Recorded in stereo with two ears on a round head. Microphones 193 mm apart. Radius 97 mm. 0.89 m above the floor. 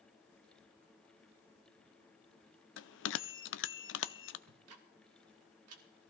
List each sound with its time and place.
2.8 s a bell: 55° left (ahead or behind), 0.6 m
4.5 s ticking: 70° right (ahead or behind), 1.7 m